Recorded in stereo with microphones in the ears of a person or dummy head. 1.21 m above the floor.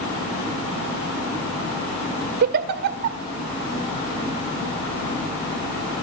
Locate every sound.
2.4 s a giggle: 50° right (ahead or behind), 1.3 m